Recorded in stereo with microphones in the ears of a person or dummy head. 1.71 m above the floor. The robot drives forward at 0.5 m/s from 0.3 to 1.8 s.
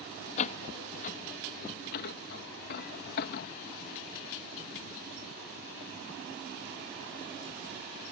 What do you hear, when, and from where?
0.4 s a door slam: 45° left (ahead or behind); by 3.5 s 60° left (ahead or behind)